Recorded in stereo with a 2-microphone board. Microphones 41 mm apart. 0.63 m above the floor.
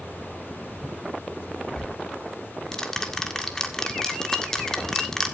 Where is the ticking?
10° left (ahead or behind), 1.7 m.